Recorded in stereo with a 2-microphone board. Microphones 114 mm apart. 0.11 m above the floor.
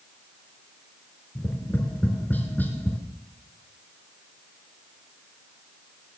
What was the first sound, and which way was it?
Tapping, 15° left (ahead or behind).